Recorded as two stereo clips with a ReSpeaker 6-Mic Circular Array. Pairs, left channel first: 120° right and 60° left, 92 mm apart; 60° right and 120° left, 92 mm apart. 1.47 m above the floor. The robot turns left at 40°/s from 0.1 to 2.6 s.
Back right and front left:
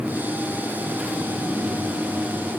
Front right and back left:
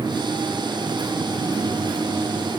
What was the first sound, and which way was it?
Only background noise.